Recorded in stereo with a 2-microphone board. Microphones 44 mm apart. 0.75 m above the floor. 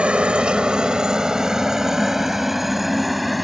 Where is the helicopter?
25° right (ahead or behind); by 3.5 s centre (ahead or behind).